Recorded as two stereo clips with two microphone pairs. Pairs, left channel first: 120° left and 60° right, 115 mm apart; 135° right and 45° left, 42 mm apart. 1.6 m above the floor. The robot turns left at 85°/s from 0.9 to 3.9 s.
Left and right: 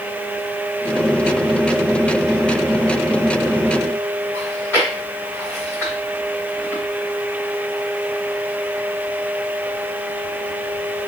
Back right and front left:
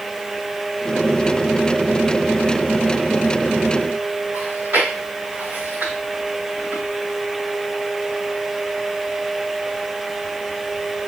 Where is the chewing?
55° left, 2.5 m.